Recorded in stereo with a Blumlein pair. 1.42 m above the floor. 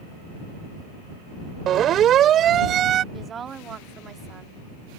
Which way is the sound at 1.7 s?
30° right.